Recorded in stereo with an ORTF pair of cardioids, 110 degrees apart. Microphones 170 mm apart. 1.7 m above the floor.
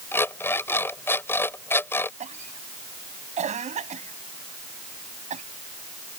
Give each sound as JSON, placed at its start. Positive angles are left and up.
{"t": 0.1, "sound": "an alarm clock", "azimuth_deg": 15}
{"t": 2.2, "sound": "a cough", "azimuth_deg": -40}